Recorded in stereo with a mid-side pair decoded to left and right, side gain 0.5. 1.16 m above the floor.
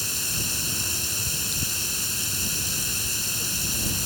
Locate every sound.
0.0 s running water: straight ahead